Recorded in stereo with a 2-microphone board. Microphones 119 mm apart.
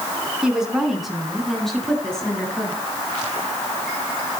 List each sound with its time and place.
0.4 s a woman speaking: 5° right (ahead or behind), 5 m; by 2.7 s 5° left (ahead or behind), 6.5 m